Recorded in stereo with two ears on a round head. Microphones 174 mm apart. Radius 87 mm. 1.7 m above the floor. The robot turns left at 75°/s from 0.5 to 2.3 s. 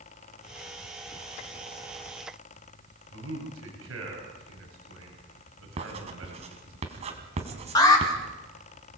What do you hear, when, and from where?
3.1 s a man speaking: 80° right, 8.5 m
5.8 s writing: 35° right (ahead or behind), 3.5 m
7.8 s an alarm: 20° left (ahead or behind), 5 m